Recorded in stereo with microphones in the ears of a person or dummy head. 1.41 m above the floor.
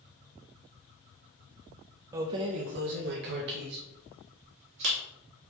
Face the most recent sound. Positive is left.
turn(degrees=-60)  # may be behind; listen again after turning